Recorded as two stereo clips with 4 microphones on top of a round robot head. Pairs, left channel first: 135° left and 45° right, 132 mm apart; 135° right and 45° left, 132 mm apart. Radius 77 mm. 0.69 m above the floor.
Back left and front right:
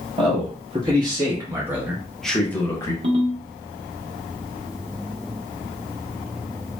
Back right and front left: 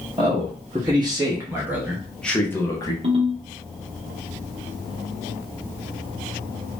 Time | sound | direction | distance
0.2 | a man speaking | straight ahead | 1.5 m
3.0 | a ringtone | straight ahead | 1.2 m